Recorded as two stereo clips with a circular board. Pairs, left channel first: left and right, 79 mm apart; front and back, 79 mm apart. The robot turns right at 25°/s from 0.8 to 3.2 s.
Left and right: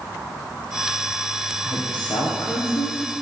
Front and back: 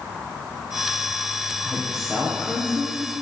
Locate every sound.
1.6 s a woman speaking: 85° left, 3.5 m; by 3.0 s 120° left, 3.5 m